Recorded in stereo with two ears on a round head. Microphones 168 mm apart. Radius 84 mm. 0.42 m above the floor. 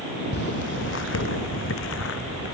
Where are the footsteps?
60° left (ahead or behind); by 2.5 s 75° left (ahead or behind).